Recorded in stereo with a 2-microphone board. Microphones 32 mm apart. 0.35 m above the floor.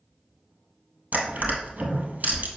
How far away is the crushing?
About 1.7 m.